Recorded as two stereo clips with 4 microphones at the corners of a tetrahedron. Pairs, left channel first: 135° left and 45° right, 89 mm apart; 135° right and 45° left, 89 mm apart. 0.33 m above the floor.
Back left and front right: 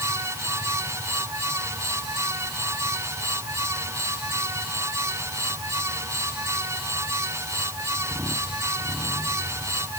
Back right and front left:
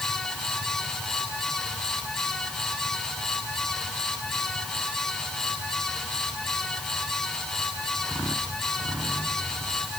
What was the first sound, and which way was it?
Only background noise.